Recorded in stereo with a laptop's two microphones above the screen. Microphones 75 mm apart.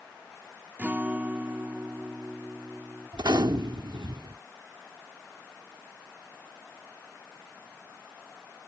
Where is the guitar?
25° right (ahead or behind).